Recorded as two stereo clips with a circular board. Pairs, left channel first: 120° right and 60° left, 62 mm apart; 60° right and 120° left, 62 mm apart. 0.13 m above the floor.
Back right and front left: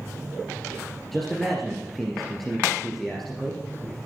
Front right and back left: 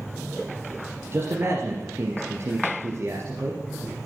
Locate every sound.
1.1 s a man speaking: 155° left, 2.5 m